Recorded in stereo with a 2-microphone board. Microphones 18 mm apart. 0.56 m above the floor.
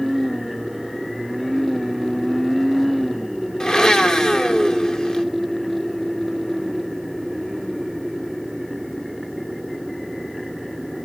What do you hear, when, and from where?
3.6 s a blender: 50° left (ahead or behind), 1.0 m